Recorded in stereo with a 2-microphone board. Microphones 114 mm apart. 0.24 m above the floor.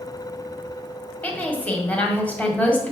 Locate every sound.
1.2 s a woman speaking: 15° left (ahead or behind), 1.6 m